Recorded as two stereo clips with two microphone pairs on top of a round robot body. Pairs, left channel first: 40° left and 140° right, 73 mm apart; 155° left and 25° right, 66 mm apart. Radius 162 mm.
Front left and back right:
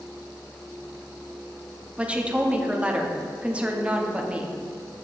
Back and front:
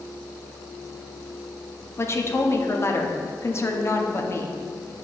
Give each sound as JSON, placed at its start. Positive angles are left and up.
{"t": 2.0, "sound": "a woman speaking", "azimuth_deg": 150, "distance_m": 1.0}